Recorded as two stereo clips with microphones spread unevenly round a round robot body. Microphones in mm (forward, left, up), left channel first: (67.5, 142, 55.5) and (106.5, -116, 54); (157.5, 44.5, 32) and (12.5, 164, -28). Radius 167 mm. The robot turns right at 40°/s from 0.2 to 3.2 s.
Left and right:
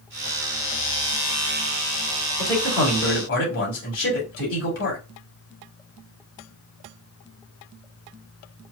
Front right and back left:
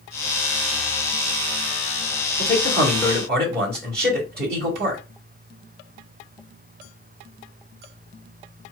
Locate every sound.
2.4 s a man speaking: 105° left, 2 m; by 5.0 s 140° left, 2 m